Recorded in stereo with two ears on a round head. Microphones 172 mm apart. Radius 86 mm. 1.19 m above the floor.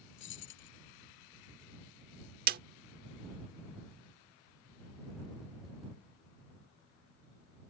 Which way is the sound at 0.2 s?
65° left (ahead or behind).